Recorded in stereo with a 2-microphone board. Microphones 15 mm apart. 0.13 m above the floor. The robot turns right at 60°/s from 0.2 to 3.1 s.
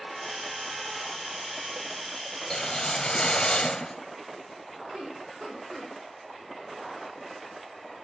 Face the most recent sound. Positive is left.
turn(degrees=-50)  # may be behind; listen again after turning